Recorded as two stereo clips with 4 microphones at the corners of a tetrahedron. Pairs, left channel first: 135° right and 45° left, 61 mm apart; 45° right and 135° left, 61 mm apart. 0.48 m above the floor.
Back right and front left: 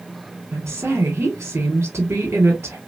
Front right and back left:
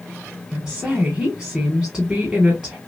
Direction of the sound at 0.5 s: 70° left.